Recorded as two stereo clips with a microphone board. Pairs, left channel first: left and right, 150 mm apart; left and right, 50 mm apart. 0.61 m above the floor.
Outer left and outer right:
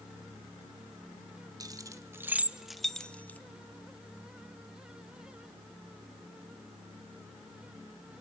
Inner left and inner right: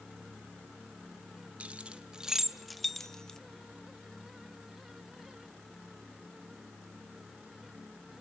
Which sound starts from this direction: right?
Keys jangling, at 1.6 s.